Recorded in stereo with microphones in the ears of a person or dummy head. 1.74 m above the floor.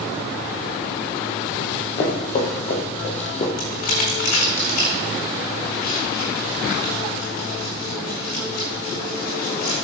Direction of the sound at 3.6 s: 60° left (ahead or behind).